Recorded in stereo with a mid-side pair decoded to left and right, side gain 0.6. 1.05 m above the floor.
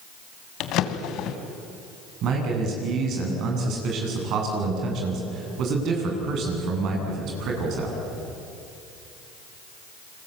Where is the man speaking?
60° right, 9 m.